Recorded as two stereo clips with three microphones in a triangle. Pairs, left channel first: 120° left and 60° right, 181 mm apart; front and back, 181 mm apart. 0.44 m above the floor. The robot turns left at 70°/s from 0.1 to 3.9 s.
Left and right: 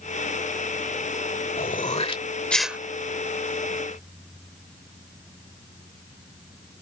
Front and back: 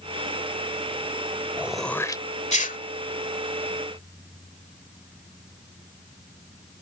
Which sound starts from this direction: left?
Throat clearing, at 1.6 s.